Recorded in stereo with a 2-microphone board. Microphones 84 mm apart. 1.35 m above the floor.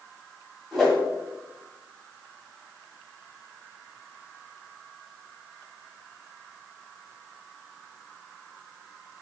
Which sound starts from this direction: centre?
A whoosh, at 0.7 s.